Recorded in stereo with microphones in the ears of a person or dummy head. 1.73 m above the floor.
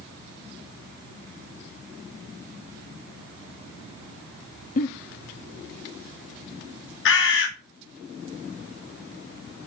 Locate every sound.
4.8 s a giggle: 40° left (ahead or behind), 0.9 m
7.0 s a bird: 70° left (ahead or behind), 2 m